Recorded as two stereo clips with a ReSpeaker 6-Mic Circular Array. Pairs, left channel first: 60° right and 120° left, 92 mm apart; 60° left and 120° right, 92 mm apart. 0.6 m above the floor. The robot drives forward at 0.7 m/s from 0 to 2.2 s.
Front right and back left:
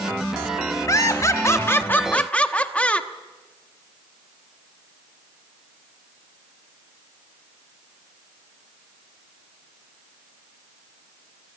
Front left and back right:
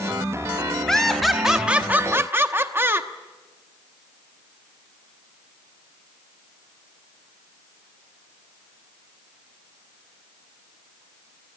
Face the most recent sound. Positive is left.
turn(degrees=-115)